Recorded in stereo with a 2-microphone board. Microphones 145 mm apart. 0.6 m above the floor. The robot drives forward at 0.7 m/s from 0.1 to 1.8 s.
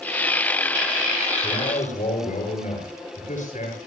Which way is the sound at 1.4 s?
60° left (ahead or behind).